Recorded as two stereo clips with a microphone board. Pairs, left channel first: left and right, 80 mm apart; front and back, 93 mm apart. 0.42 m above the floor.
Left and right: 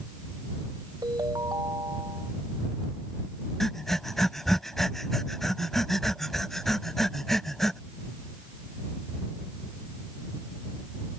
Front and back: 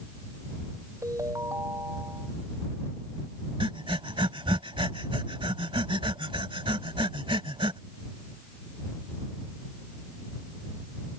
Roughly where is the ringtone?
Behind right.